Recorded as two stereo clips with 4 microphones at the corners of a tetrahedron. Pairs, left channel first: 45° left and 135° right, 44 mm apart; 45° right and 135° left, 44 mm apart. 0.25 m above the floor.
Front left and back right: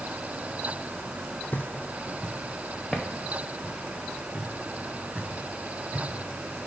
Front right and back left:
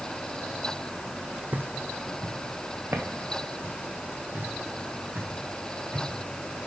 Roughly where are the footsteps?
Left.